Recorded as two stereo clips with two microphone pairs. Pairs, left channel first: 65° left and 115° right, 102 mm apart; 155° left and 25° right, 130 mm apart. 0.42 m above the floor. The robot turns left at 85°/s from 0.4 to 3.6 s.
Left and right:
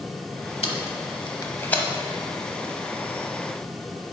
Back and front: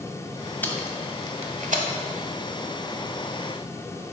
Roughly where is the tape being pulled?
Left.